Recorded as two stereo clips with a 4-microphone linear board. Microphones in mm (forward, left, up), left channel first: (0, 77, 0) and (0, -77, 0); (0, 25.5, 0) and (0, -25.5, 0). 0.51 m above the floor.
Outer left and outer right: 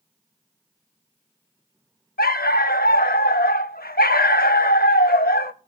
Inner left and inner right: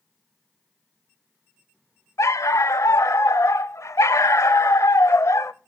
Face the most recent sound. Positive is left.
turn(degrees=75)  # may be behind; listen again after turning